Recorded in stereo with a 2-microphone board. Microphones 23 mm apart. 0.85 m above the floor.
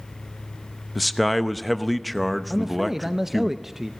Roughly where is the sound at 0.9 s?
Centre.